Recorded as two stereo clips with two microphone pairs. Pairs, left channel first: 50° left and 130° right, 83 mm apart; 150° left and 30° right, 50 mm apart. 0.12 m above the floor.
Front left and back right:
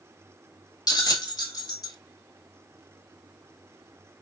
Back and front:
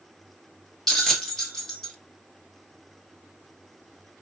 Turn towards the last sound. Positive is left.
turn(degrees=70)